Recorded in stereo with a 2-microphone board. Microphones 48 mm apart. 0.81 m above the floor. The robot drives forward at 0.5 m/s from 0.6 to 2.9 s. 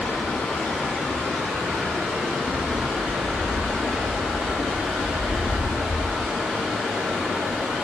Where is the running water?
30° left (ahead or behind), 2.5 m; by 7.8 s 20° left (ahead or behind), 3.5 m.